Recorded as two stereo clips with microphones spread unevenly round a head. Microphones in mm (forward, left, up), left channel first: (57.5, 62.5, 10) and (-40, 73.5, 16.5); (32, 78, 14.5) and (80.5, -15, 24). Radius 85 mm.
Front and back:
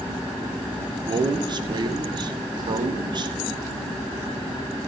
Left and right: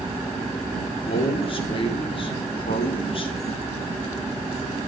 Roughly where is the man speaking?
Behind left.